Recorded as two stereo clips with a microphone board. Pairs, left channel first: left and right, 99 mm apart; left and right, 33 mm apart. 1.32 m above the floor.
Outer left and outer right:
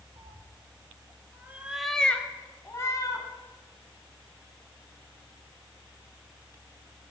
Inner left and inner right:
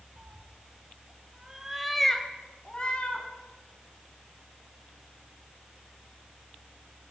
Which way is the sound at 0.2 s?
50° right (ahead or behind).